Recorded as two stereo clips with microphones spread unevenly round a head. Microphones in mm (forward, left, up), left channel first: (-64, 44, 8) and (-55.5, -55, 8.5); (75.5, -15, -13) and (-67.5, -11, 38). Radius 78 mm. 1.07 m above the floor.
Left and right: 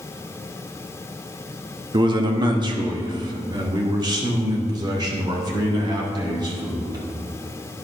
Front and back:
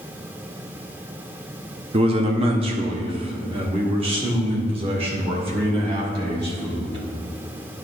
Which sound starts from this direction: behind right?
A man speaking, at 1.9 s.